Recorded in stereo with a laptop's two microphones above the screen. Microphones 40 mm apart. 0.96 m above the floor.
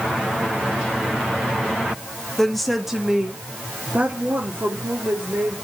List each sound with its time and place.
2.4 s a woman speaking: 10° left (ahead or behind), 1.8 m; by 5.6 s 55° right (ahead or behind), 3 m